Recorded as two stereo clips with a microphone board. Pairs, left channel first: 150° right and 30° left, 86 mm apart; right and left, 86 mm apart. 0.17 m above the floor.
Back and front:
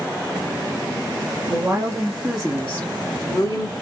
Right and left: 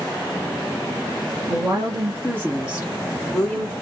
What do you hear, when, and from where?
1.5 s a woman speaking: 85° left, 1.5 m; by 3.7 s 165° right, 1.6 m